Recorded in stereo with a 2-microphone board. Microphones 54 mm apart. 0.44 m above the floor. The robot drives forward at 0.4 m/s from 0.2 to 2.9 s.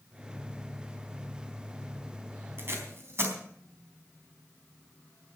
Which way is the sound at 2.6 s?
45° right (ahead or behind).